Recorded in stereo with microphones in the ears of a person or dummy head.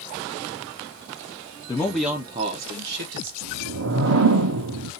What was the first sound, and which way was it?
A man speaking, 20° left (ahead or behind).